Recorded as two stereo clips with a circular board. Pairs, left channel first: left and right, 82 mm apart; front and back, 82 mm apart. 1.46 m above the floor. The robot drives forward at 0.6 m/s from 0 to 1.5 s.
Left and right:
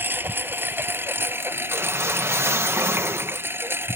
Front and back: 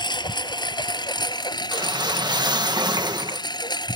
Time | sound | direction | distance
0.0 | a lawn mower | 25° right | ?
1.7 | a whoosh | 150° right | ?